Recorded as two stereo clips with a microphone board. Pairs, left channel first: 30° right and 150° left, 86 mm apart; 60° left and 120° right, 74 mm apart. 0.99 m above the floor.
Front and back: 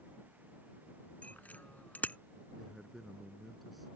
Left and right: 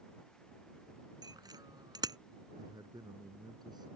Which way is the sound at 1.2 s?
100° right.